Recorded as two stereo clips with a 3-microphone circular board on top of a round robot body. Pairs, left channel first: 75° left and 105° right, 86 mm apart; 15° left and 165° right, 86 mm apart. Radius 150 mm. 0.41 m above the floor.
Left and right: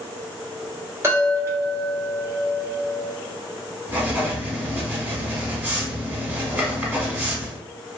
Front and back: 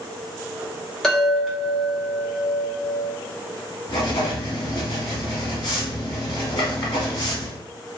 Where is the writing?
30° right, 0.9 m.